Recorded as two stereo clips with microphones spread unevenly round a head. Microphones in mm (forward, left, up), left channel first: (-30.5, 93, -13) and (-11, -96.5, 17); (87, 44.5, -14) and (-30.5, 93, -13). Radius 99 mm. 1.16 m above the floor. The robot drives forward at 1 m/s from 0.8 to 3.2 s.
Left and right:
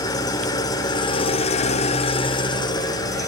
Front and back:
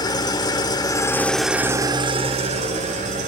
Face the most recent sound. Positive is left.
turn(degrees=170)